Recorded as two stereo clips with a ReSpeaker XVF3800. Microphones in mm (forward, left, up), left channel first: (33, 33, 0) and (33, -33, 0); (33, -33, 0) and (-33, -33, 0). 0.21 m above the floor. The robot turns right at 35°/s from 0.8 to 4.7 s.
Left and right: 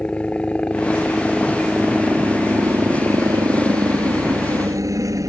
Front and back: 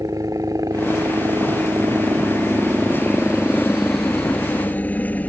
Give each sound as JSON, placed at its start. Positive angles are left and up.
{"t": 0.0, "sound": "a helicopter", "azimuth_deg": 160}